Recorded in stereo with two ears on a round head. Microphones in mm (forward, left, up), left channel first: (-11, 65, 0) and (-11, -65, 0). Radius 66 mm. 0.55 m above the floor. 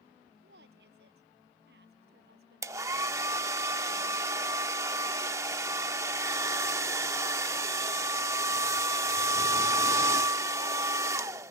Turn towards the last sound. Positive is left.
turn(degrees=-20)  # may be behind; listen again after turning